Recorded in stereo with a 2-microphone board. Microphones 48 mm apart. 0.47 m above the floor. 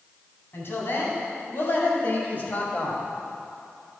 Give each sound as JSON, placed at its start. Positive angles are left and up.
{"t": 0.5, "sound": "a woman speaking", "side_deg": 55, "distance_m": 3.0}